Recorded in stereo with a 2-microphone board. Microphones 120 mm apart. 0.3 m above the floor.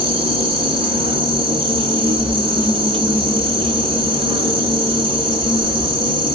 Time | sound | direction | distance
0.0 | an insect | 45° right (ahead or behind) | 1.0 m